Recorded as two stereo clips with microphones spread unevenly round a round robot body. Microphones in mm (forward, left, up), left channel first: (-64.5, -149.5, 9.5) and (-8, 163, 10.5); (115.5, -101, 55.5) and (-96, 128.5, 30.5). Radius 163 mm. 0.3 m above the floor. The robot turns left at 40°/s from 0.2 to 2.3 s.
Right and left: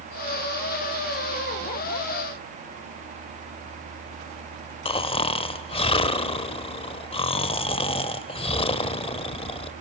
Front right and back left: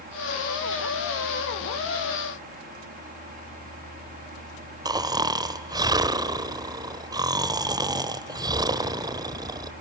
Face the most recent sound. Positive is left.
turn(degrees=-165)